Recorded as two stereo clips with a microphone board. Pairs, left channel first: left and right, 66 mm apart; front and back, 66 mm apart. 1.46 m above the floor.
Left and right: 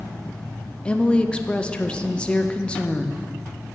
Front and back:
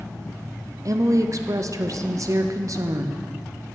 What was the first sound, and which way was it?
A woman speaking, 160° left.